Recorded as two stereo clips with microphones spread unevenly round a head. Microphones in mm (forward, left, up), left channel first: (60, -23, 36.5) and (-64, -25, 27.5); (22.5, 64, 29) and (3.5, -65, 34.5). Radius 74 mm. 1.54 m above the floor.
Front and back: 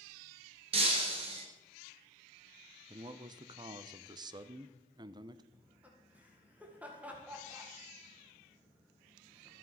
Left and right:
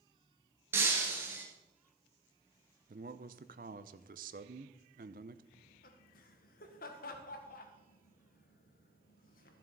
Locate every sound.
0.7 s breaking glass: 165° right, 1.8 m
2.9 s a man speaking: 125° right, 0.7 m
5.5 s laughter: 100° left, 1.7 m